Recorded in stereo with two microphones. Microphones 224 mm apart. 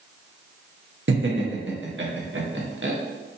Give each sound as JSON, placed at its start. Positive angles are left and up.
{"t": 1.1, "sound": "laughter", "side_deg": -65, "distance_m": 1.0}